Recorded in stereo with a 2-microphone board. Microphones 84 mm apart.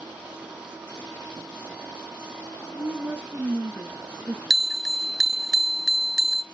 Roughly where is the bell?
Centre.